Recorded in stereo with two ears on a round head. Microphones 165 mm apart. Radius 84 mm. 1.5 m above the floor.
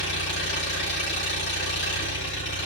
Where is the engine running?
75° left (ahead or behind), 6.5 m.